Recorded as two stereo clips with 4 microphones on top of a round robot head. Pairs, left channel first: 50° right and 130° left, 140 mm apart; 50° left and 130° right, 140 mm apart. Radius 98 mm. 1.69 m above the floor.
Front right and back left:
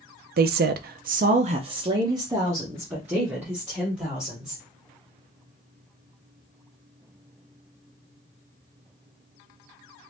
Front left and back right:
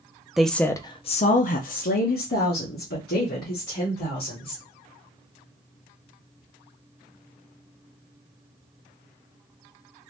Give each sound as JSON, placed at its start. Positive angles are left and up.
{"t": 0.4, "sound": "a woman speaking", "azimuth_deg": 145, "distance_m": 0.5}